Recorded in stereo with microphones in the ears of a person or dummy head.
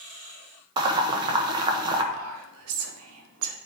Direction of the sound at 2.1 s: 85° right.